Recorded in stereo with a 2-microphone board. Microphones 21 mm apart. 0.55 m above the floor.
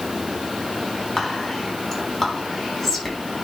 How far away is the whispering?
About 4.5 m.